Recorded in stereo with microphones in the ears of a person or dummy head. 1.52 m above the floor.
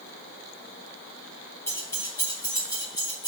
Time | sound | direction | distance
1.7 | keys jangling | 15° left (ahead or behind) | 1.0 m